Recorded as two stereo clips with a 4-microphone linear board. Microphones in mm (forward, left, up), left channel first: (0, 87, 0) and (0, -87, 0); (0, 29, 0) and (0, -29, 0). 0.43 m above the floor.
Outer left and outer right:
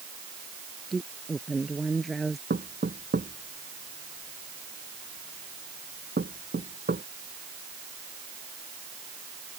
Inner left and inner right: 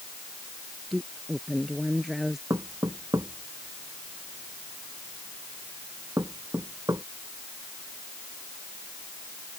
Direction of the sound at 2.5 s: 75° right (ahead or behind).